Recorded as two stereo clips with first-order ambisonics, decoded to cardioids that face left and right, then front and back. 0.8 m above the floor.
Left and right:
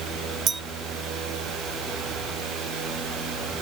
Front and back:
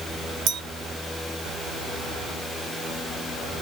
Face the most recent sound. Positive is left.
turn(degrees=-150)